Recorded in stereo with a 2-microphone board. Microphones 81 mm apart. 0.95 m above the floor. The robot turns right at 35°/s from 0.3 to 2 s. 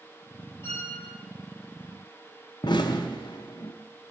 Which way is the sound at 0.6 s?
35° left (ahead or behind).